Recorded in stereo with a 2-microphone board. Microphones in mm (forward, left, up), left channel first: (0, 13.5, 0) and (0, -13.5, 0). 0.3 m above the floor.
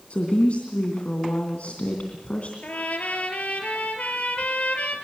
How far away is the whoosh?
No whoosh in this recording.